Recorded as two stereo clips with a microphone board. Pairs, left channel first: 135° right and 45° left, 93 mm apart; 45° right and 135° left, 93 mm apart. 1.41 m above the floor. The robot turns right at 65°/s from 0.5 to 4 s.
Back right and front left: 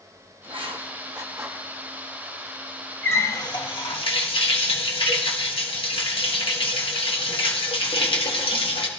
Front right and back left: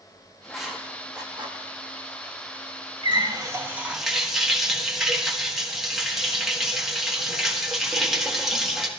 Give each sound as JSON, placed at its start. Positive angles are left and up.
{"t": 0.4, "sound": "writing", "azimuth_deg": 45, "distance_m": 1.3}
{"t": 3.0, "sound": "a running tap", "azimuth_deg": 160, "distance_m": 1.4}